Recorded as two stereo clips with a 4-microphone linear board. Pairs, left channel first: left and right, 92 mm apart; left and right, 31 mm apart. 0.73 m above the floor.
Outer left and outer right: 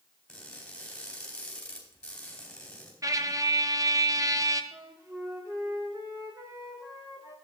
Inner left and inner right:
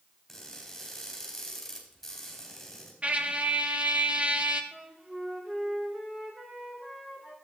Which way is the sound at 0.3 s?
5° left (ahead or behind).